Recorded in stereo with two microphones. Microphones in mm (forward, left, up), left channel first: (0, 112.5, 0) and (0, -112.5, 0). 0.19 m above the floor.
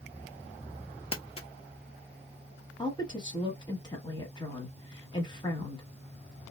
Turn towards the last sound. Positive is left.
turn(degrees=20)  # may be behind; listen again after turning